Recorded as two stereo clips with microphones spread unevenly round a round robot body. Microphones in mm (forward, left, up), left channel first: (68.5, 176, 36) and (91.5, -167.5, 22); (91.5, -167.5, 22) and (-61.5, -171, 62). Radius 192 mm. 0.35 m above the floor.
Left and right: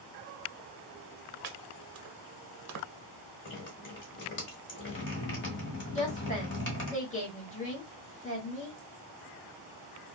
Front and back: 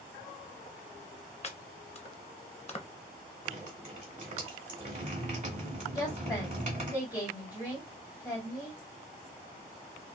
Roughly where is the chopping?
Ahead right.